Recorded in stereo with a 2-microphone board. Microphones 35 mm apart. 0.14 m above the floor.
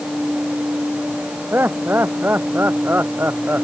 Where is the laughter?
80° right; by 3.6 s 70° right (ahead or behind).